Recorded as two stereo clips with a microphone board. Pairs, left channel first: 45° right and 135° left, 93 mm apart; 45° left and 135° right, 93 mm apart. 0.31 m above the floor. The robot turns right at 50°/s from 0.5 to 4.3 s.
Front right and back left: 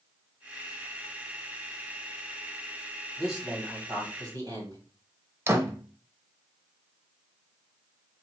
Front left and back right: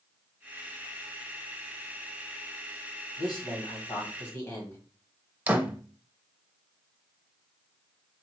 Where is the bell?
No bell in this recording.